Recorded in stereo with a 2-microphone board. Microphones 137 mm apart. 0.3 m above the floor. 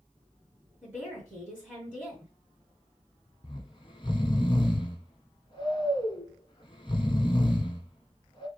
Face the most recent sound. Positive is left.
turn(degrees=40)  # may be behind; listen again after turning